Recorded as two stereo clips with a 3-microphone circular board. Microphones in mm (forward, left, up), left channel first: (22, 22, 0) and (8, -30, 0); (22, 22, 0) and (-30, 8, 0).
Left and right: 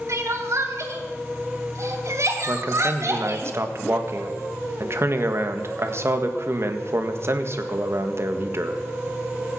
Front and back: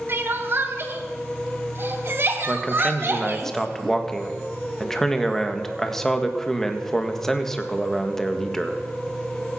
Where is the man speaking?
70° right, 1.6 m.